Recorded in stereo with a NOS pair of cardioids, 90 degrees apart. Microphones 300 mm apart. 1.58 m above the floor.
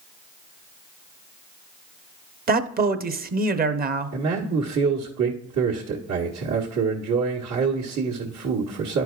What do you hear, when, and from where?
2.5 s a man speaking: 30° right, 0.8 m
4.1 s a man speaking: 65° right, 1.4 m